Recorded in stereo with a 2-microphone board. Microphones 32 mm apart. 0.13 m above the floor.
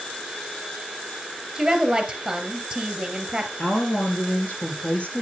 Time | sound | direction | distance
1.6 | a woman speaking | 15° right (ahead or behind) | 2.5 m
3.6 | a woman speaking | 45° left (ahead or behind) | 3.5 m